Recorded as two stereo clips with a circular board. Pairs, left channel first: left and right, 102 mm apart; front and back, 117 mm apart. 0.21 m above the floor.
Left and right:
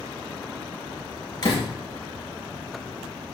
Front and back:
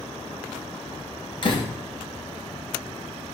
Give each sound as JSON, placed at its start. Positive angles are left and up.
{"t": 1.4, "sound": "a door slam", "azimuth_deg": 45, "distance_m": 3.0}